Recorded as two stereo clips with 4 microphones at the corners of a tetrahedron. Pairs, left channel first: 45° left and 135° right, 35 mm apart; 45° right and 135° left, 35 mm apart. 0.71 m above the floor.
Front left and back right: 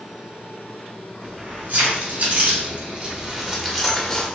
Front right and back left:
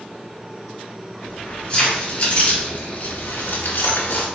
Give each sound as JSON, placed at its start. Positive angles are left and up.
{"t": 1.2, "sound": "keys jangling", "azimuth_deg": -110, "distance_m": 2.0}